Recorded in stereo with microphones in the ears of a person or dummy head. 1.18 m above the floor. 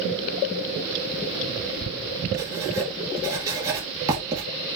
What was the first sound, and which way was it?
Writing, 15° right (ahead or behind).